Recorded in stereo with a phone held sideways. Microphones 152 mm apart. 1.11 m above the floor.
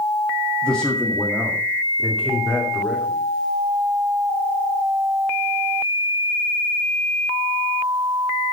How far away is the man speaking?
About 1.7 m.